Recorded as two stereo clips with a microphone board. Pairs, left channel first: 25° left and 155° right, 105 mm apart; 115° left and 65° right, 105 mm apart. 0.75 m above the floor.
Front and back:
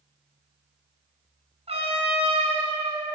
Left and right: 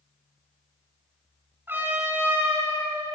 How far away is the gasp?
I don't hear a gasp.